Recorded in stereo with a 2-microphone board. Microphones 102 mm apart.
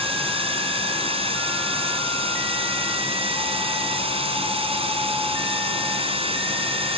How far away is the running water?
About 3 m.